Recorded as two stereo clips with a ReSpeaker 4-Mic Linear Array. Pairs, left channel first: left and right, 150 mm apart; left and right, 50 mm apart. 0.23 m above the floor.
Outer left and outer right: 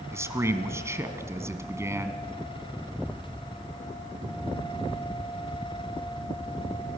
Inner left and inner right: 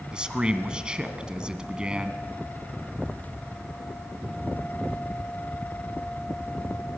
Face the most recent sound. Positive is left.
turn(degrees=-20)  # may be behind; listen again after turning